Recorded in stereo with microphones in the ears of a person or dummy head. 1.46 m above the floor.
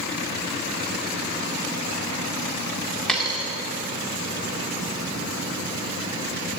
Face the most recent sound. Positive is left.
turn(degrees=5)  # may be behind; listen again after turning